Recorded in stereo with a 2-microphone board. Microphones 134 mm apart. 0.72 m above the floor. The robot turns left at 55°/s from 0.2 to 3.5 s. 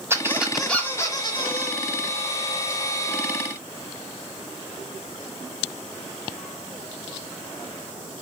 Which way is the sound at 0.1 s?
160° right.